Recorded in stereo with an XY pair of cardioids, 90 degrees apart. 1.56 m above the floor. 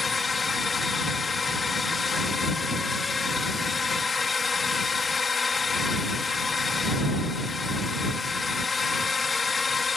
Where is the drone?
40° left.